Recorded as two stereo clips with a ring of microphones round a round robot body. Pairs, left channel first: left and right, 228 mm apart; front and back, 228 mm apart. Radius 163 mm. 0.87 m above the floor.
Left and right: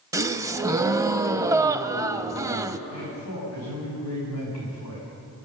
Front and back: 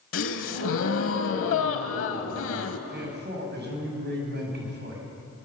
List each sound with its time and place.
0.1 s a gasp: 15° right, 0.9 m
2.9 s a man speaking: 135° left, 7.5 m